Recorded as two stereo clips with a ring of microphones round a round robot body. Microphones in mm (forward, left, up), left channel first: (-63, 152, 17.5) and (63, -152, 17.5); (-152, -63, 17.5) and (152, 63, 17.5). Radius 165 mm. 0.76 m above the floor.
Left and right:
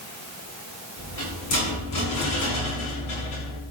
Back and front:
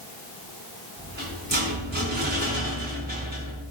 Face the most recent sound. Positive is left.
turn(degrees=85)